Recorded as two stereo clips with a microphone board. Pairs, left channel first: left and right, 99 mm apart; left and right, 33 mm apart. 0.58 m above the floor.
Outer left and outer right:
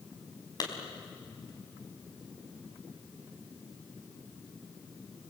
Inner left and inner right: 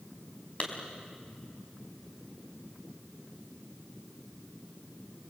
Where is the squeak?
I don't hear a squeak.